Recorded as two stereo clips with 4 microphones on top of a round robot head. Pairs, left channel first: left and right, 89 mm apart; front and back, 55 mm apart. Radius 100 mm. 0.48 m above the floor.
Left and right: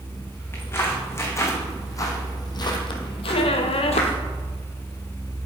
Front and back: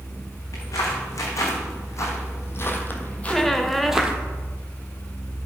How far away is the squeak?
About 0.9 m.